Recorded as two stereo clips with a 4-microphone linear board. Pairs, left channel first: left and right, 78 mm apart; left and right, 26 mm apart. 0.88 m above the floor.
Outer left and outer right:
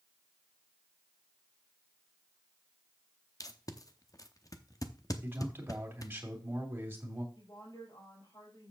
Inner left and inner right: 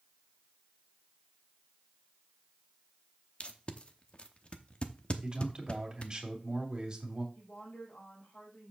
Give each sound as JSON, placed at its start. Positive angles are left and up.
{"t": 3.4, "sound": "tape being pulled", "side_deg": 50, "distance_m": 0.8}
{"t": 5.2, "sound": "a man speaking", "side_deg": -25, "distance_m": 2.5}
{"t": 7.3, "sound": "a woman speaking", "side_deg": 80, "distance_m": 4.5}